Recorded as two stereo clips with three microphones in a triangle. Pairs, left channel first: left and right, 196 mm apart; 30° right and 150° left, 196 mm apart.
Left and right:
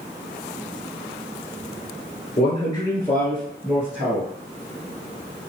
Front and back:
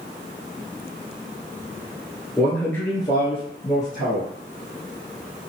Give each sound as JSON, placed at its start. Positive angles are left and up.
{"t": 2.4, "sound": "a man speaking", "azimuth_deg": 60, "distance_m": 1.6}